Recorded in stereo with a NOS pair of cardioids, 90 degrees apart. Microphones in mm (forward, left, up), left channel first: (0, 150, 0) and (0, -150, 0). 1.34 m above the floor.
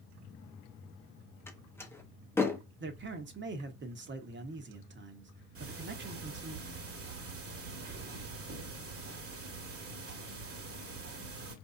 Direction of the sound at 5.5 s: 45° right.